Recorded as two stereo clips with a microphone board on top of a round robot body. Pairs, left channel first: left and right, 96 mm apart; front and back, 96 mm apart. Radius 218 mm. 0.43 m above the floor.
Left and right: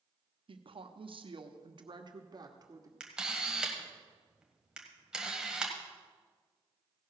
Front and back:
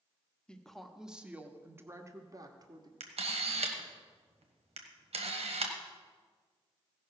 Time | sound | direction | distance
0.5 | a woman speaking | 80° right | 1.2 m
3.0 | a camera shutter | 170° right | 1.3 m